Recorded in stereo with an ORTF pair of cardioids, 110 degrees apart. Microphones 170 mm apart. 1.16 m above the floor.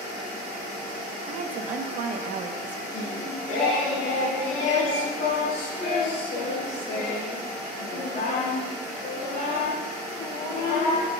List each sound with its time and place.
1.3 s a woman speaking: 50° right, 1.2 m
2.9 s singing: 55° left, 4 m